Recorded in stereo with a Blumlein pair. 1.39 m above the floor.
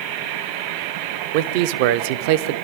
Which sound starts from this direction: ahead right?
A man speaking, at 1.3 s.